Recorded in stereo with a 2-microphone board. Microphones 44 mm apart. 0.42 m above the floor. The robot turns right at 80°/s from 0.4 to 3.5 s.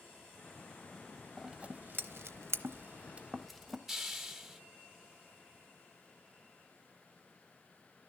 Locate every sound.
1.4 s scissors: 5° right (ahead or behind), 0.6 m; by 3.8 s centre (ahead or behind), 0.6 m
3.9 s a hiss: 5° right (ahead or behind), 1.4 m